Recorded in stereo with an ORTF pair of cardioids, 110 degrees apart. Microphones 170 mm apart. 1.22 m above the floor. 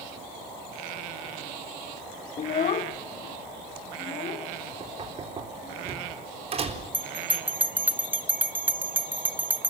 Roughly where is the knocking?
Ahead right.